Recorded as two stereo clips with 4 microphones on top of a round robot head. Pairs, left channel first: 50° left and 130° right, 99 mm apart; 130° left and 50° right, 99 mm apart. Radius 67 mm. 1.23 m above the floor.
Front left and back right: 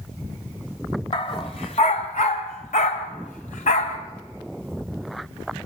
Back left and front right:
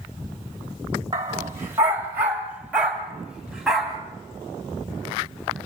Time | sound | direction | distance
1.1 | a dog barking | 10° left | 1.5 m